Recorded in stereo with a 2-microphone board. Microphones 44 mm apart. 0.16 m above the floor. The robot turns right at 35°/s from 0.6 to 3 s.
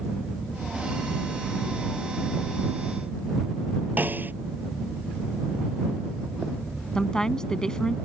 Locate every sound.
4.0 s a snare drum: 45° right (ahead or behind)
7.0 s a woman speaking: 15° left (ahead or behind)